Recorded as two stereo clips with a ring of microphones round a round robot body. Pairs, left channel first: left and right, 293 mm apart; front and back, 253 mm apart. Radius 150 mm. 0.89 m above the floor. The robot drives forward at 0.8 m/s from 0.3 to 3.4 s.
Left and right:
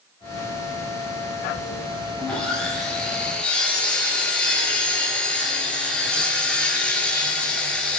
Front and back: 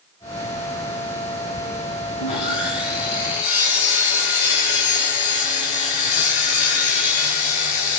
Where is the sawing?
5° left, 6.5 m.